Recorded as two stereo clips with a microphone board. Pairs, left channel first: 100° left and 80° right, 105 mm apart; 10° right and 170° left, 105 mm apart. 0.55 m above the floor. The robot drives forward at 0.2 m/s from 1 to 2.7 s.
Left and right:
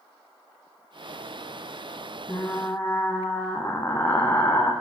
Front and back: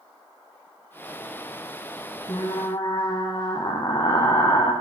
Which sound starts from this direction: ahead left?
Frying, at 2.3 s.